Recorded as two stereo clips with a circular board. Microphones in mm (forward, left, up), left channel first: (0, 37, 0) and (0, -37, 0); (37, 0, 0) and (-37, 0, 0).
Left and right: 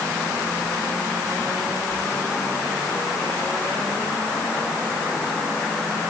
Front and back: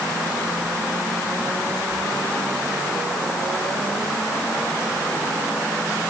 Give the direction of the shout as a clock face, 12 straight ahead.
No shout in this recording.